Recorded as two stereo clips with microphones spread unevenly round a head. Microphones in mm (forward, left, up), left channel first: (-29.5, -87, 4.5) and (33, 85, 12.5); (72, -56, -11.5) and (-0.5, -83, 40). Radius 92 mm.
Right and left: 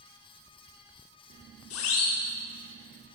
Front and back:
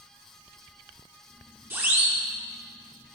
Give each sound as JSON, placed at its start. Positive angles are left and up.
{"t": 1.7, "sound": "a siren", "azimuth_deg": -100, "distance_m": 4.5}